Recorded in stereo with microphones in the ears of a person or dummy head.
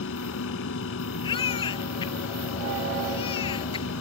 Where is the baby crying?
25° left (ahead or behind).